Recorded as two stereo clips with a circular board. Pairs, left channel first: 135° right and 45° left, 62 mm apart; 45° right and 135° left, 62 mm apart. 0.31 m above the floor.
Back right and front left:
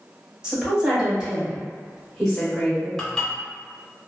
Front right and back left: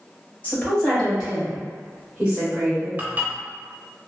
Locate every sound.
0.4 s a woman speaking: 10° right, 1.4 m; by 2.9 s 140° left, 1.5 m
3.0 s dishes clattering: 155° left, 0.6 m